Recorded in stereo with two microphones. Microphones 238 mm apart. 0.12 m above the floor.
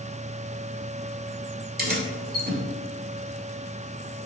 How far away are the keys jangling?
About 1.3 m.